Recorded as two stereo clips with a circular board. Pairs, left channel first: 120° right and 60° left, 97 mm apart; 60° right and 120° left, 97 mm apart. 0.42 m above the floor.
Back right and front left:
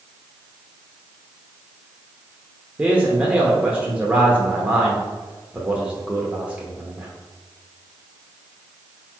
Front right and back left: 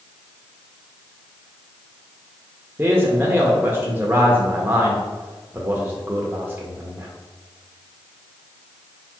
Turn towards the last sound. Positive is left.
turn(degrees=105)